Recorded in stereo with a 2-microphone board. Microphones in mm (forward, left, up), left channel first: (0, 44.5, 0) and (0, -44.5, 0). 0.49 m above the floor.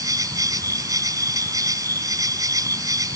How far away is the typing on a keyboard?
No typing on a keyboard in this recording.